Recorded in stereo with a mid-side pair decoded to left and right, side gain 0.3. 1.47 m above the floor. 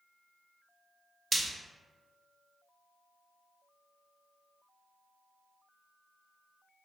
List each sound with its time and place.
1.3 s frying: 45° right, 0.6 m